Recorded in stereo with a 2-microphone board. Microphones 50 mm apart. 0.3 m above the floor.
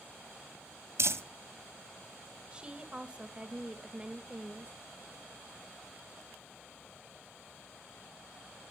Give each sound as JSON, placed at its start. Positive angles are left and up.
{"t": 1.0, "sound": "crumpling", "side_deg": -65, "distance_m": 1.1}
{"t": 2.5, "sound": "a woman speaking", "side_deg": -20, "distance_m": 0.9}